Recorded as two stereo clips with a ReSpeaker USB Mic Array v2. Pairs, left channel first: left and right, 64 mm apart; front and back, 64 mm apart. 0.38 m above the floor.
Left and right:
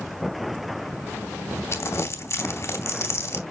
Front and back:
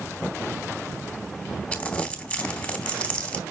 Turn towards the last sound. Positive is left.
turn(degrees=60)